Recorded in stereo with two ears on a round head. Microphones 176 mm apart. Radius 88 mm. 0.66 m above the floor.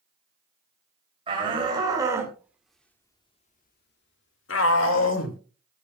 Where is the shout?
30° right (ahead or behind), 3 m; by 5.4 s 70° left (ahead or behind), 2.5 m.